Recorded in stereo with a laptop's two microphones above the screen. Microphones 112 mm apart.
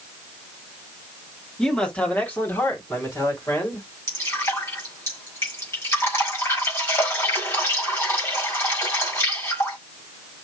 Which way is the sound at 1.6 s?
5° left (ahead or behind).